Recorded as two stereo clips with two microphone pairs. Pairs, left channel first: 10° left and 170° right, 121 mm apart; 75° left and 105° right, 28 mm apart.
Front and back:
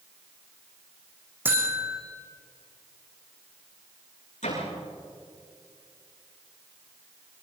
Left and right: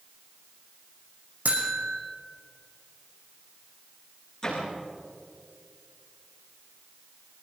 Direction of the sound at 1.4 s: 95° right.